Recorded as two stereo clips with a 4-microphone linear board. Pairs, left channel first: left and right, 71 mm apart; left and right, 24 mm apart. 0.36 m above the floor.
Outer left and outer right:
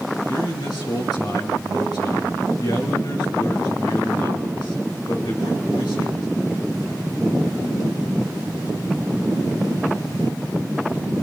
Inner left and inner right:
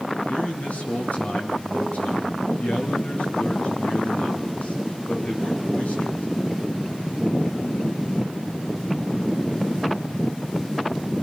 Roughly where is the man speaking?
Left.